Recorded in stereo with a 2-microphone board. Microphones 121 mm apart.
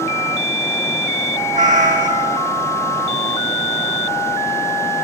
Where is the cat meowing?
75° right (ahead or behind), 0.9 m.